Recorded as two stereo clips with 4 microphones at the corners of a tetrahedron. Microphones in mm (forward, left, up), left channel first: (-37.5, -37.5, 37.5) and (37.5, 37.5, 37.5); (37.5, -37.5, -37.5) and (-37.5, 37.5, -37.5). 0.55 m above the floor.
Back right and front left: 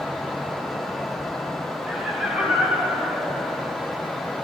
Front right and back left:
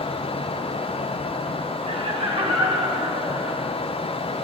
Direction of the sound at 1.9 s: 130° left.